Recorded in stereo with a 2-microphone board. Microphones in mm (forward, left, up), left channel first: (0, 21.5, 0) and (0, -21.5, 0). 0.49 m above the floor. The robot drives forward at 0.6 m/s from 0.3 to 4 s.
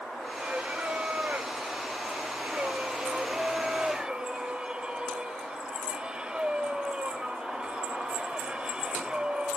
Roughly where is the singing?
Right.